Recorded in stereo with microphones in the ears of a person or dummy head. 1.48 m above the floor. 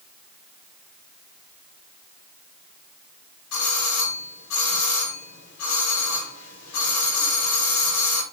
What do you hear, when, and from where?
3.5 s a doorbell: 80° left, 6 m